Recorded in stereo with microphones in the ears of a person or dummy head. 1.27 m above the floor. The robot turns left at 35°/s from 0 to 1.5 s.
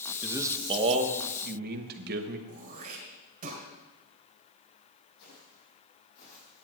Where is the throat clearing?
45° right (ahead or behind), 2.5 m.